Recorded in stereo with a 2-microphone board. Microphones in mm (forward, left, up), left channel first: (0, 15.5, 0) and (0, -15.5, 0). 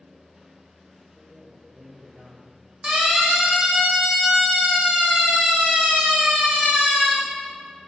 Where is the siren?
20° right (ahead or behind), 6 m; by 7.1 s 55° right (ahead or behind), 7.5 m.